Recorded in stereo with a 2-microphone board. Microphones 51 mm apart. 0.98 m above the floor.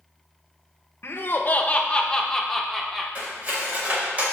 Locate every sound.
1.0 s laughter: 50° left (ahead or behind), 0.8 m; by 3.0 s 5° right (ahead or behind), 1.2 m
3.1 s cutlery clinking: 30° right (ahead or behind), 2.5 m